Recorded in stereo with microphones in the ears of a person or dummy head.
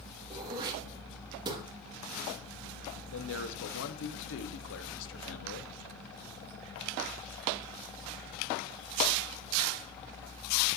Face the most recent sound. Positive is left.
turn(degrees=75)  # may be behind; listen again after turning